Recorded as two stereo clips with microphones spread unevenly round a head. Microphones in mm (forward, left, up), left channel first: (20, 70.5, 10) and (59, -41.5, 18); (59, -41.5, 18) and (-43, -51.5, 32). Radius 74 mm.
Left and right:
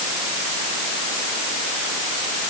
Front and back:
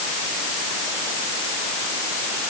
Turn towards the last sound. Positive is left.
No sound to turn to.